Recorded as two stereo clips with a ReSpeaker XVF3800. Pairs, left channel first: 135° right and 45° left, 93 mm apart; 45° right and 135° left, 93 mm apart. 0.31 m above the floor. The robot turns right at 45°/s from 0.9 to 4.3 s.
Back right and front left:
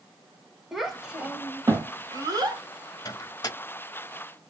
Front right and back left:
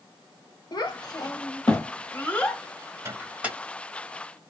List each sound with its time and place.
0.7 s a child speaking: 40° right, 1.1 m; by 2.6 s 35° left, 1.1 m
3.0 s a microwave: 170° right, 1.1 m; by 3.6 s 145° right, 1.1 m